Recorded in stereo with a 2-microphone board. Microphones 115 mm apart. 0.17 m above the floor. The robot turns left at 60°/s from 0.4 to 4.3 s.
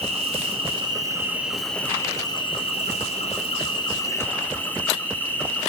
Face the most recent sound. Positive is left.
turn(degrees=20)